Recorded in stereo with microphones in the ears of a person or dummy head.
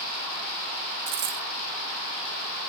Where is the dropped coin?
45° right (ahead or behind), 0.6 m.